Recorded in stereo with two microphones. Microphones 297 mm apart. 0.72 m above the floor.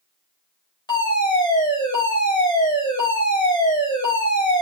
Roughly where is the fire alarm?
Centre.